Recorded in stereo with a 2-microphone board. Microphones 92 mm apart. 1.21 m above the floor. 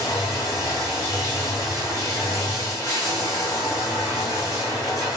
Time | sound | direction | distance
0.0 | running water | 35° left (ahead or behind) | 1.4 m